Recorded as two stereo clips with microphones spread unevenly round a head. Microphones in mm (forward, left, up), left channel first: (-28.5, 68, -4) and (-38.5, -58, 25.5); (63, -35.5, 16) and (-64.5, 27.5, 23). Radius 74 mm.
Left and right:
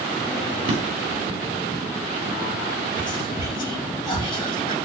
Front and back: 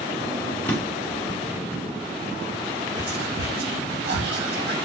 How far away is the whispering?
About 2.5 m.